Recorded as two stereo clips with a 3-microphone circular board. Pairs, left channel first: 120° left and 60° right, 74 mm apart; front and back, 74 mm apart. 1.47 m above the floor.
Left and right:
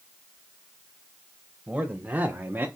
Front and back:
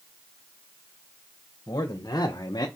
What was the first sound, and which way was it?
A man speaking, 15° left.